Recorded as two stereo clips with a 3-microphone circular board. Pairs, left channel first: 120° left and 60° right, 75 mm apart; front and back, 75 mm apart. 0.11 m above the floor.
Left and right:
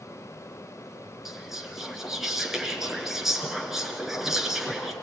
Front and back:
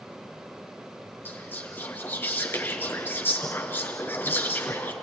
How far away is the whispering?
About 1.9 m.